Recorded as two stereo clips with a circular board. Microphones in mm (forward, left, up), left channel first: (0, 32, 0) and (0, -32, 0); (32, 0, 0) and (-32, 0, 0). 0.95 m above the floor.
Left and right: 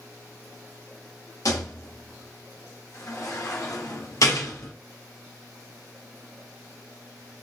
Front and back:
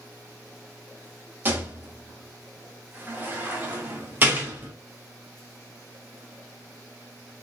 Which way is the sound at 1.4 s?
120° left.